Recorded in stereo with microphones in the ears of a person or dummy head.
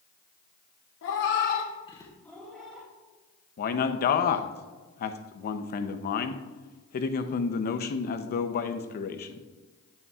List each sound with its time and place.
1.0 s a cat meowing: 60° left (ahead or behind), 0.9 m; by 2.9 s 5° right (ahead or behind), 1.9 m
3.6 s a man speaking: 45° left (ahead or behind), 0.6 m